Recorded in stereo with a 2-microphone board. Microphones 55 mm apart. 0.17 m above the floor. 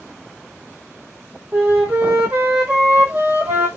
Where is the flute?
30° right (ahead or behind), 1.5 m.